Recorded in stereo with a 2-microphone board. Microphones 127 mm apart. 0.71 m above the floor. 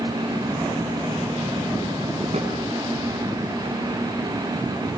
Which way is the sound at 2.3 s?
60° right (ahead or behind).